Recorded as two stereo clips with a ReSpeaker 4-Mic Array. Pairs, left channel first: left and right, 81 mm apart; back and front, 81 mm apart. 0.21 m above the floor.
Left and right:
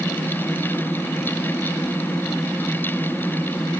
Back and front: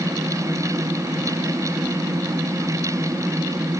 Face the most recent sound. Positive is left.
No sound to turn to.